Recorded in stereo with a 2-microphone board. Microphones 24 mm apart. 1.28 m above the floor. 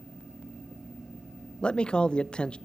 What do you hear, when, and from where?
1.6 s a man speaking: 40° left (ahead or behind), 0.7 m